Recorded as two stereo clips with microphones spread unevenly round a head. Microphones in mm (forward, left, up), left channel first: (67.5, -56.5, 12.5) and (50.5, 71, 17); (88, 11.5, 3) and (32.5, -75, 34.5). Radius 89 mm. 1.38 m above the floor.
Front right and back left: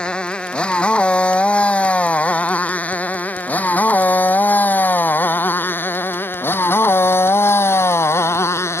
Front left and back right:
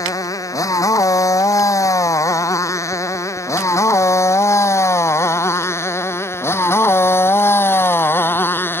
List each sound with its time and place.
0.0 s a motorcycle: straight ahead; by 8.8 s 15° right